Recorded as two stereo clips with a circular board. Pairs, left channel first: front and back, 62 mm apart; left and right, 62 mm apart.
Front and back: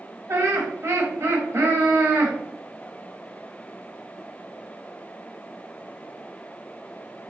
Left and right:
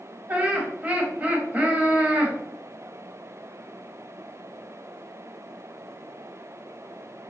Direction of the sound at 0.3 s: 155° right.